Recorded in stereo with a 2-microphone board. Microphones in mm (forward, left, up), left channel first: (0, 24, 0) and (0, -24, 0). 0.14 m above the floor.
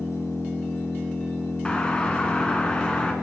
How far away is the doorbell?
About 1.8 m.